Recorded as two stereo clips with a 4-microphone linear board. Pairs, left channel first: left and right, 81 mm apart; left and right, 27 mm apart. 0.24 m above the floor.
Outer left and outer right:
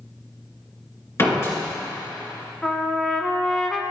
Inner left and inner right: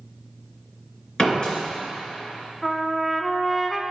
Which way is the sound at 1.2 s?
35° left (ahead or behind).